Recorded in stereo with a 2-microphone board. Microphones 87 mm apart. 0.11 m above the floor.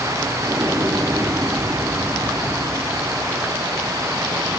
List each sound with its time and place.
0.4 s an explosion: 30° right (ahead or behind), 5 m